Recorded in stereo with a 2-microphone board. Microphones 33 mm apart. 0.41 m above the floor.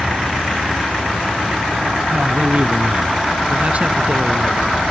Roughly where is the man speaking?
Right.